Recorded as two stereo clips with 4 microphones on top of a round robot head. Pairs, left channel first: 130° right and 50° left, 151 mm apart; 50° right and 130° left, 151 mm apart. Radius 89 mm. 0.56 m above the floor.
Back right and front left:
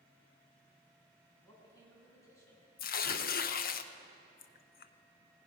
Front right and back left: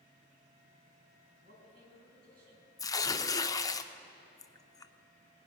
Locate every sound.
1.4 s a man speaking: 155° left, 4.5 m
2.8 s tearing paper: 115° right, 0.6 m